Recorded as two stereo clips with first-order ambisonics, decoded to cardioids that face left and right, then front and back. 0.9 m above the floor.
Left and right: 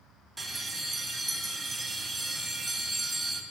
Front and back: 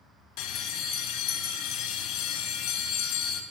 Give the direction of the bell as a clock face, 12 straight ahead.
12 o'clock.